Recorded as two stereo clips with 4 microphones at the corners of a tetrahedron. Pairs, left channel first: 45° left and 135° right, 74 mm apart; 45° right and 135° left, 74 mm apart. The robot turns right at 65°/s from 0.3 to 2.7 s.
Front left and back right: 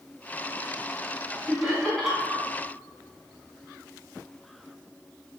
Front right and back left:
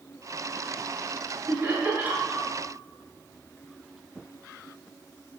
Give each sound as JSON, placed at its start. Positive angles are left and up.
{"t": 1.5, "sound": "laughter", "azimuth_deg": 100, "distance_m": 1.1}